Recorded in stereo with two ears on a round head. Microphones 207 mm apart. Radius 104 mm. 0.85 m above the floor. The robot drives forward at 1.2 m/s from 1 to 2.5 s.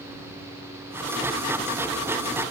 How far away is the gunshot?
No gunshot in this recording.